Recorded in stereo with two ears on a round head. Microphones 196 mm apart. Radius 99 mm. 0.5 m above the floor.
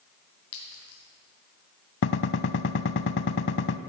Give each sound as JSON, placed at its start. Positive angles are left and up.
{"t": 0.5, "sound": "a clink", "side_deg": 75, "distance_m": 3.5}
{"t": 2.0, "sound": "a gunshot", "side_deg": 60, "distance_m": 0.5}